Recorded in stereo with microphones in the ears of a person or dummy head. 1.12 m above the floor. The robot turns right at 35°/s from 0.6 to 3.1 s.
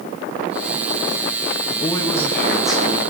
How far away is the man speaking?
About 1.6 m.